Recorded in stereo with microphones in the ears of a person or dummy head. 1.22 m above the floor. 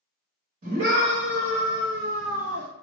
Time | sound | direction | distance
0.6 | a scream | 60° right (ahead or behind) | 2 m